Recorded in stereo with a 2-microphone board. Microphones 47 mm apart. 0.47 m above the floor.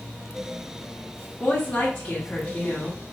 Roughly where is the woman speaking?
Left.